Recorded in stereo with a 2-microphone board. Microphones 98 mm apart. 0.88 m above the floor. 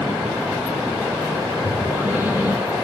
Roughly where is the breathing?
Centre.